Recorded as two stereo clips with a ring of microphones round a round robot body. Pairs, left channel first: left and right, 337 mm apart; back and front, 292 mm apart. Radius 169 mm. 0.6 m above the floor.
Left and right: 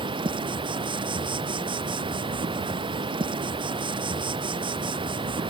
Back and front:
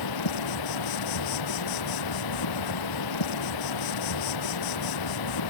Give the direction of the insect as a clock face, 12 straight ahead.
6 o'clock.